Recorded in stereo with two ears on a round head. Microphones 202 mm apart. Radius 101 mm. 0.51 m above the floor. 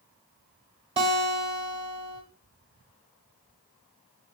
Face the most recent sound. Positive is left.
turn(degrees=-25)  # may be behind; listen again after turning